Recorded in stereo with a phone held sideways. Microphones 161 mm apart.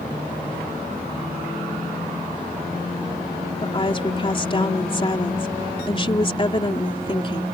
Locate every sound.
3.6 s a woman speaking: 35° left (ahead or behind)